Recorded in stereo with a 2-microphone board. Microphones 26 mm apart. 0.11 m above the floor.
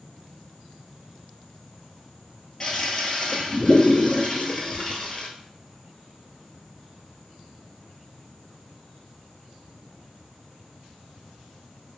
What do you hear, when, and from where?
2.6 s a toilet flushing: 25° left (ahead or behind), 0.9 m